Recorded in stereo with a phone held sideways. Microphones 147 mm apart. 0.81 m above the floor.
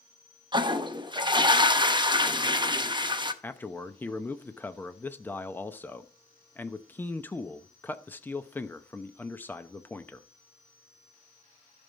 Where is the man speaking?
15° left (ahead or behind), 0.8 m.